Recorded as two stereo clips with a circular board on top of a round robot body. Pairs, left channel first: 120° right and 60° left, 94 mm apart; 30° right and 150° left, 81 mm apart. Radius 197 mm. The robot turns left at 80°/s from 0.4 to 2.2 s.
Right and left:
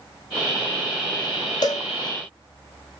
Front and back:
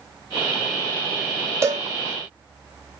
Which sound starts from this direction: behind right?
A cowbell, at 1.6 s.